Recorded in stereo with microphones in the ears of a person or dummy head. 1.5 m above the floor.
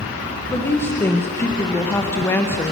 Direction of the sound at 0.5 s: 15° left (ahead or behind).